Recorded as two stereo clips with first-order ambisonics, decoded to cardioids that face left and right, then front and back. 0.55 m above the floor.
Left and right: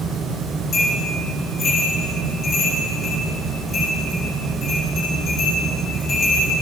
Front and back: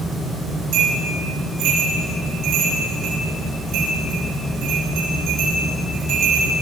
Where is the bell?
155° left, 7 m.